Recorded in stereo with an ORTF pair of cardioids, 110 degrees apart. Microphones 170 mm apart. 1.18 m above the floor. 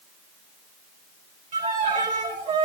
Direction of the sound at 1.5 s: 50° right.